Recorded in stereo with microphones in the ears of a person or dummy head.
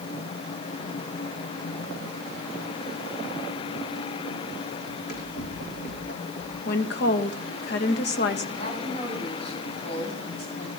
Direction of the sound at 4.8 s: 55° left (ahead or behind).